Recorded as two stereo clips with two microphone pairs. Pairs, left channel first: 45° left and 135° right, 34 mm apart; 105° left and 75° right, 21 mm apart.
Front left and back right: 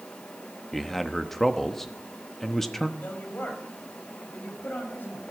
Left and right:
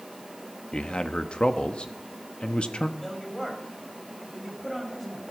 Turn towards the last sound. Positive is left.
turn(degrees=25)